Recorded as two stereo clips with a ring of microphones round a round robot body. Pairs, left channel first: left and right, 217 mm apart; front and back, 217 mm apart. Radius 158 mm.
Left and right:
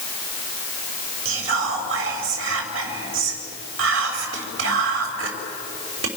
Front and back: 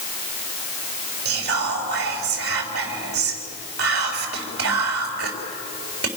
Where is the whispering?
130° right, 3.5 m.